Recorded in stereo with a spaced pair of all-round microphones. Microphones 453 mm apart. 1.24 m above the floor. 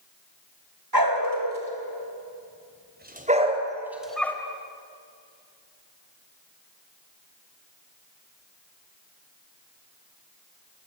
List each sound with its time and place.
0.9 s a dog barking: 50° right (ahead or behind), 3.5 m; by 4.4 s 5° left (ahead or behind), 2.5 m